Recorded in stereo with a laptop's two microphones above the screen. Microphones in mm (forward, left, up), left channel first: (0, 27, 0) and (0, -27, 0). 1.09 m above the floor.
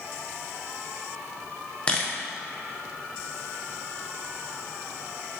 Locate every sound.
1.9 s a camera shutter: 20° left (ahead or behind), 0.8 m